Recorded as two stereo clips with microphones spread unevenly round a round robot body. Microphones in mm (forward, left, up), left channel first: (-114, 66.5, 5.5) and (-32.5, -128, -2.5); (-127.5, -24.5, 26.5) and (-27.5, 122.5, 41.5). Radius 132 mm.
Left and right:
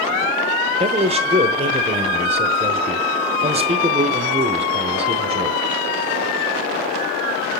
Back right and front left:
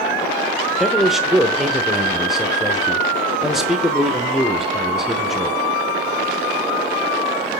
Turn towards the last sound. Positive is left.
turn(degrees=-40)